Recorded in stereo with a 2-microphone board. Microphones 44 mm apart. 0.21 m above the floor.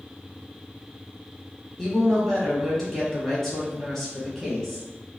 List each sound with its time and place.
1.8 s a woman speaking: 5° left (ahead or behind), 1.3 m